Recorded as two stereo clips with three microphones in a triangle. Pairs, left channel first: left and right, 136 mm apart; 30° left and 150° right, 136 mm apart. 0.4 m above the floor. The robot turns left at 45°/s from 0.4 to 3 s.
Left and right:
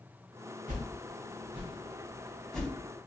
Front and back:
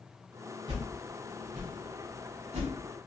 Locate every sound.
0.7 s a whoosh: 100° right, 1.0 m; by 2.7 s 170° left, 1.0 m